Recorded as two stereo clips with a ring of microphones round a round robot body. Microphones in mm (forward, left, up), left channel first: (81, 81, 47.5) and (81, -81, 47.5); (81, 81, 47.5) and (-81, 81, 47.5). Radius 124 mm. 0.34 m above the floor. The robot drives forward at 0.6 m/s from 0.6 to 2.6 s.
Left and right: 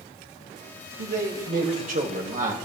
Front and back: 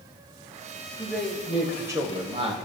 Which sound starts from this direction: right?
A man speaking, at 1.0 s.